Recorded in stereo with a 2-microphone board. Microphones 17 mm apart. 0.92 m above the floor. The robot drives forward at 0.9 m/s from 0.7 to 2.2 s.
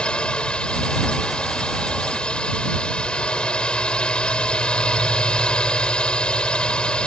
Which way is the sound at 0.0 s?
70° left (ahead or behind).